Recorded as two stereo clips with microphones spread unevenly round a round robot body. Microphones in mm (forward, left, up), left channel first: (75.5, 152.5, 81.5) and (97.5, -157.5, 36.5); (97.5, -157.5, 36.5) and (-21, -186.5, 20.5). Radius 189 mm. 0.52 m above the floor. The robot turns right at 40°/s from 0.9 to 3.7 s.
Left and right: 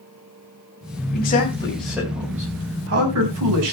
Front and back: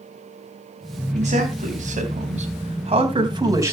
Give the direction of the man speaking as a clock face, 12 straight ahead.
7 o'clock.